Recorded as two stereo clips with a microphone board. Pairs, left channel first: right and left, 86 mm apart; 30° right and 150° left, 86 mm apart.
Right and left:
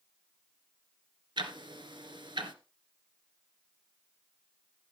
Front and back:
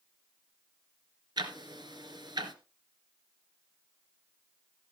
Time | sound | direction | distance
1.4 | ticking | 115° left | 1.9 m